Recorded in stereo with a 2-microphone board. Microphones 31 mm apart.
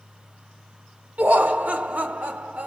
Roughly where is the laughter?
Right.